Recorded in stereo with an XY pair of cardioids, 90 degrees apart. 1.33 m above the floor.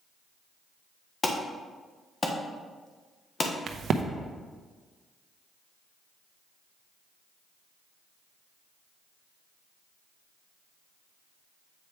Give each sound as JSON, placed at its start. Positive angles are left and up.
{"t": 1.2, "sound": "an alarm", "azimuth_deg": 35, "distance_m": 1.2}
{"t": 3.7, "sound": "a crack", "azimuth_deg": -65, "distance_m": 0.8}